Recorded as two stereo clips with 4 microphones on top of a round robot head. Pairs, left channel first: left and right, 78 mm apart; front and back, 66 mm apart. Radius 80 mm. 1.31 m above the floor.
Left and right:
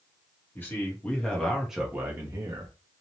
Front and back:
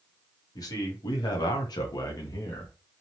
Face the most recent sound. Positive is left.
turn(degrees=-50)